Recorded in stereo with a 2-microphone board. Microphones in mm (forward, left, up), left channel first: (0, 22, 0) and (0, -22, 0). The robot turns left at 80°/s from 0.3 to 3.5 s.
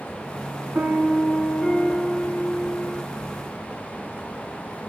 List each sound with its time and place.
0.8 s a piano: 120° right, 1.8 m; by 3.0 s 55° left, 1.8 m